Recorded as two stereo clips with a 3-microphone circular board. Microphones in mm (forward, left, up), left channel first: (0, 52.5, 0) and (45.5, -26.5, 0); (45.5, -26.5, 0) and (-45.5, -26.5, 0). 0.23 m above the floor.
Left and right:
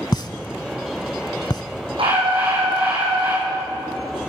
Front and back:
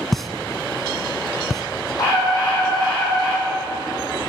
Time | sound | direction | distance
0.1 | a pop | 90° left | 0.7 m
2.0 | a scream | 45° right | 8 m